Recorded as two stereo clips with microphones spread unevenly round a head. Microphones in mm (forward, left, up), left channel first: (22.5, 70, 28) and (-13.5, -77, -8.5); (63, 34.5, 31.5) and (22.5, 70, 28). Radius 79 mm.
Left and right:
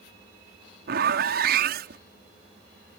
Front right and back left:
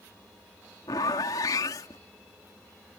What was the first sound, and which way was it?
A zipper, 80° right.